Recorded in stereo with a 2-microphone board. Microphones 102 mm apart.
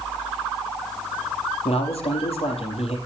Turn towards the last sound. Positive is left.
turn(degrees=70)  # may be behind; listen again after turning